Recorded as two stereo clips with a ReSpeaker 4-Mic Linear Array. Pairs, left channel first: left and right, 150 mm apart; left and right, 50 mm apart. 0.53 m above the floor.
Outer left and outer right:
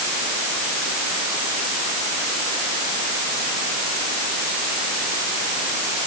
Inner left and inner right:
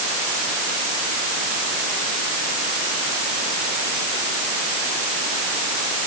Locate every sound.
Only background noise.